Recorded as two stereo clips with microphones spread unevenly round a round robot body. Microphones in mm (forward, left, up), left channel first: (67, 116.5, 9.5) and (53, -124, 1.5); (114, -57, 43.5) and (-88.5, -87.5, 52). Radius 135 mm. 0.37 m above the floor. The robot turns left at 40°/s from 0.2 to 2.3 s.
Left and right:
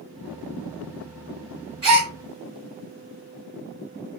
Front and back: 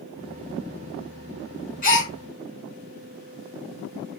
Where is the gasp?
25° right, 2.5 m; by 2.1 s 40° right, 2.5 m.